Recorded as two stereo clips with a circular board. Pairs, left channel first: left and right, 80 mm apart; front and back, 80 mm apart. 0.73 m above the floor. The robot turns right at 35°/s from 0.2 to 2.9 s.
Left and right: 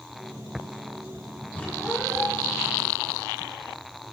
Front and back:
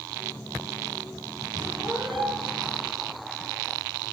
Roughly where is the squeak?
Behind.